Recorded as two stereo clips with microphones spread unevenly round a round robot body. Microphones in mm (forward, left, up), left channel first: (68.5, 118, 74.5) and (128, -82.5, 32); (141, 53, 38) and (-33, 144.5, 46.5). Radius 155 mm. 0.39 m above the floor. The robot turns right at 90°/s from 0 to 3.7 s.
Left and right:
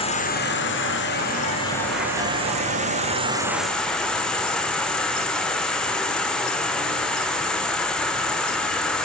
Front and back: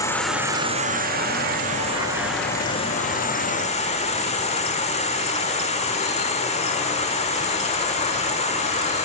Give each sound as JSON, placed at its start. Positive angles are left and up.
{"t": 0.0, "sound": "an insect", "azimuth_deg": 35, "distance_m": 1.3}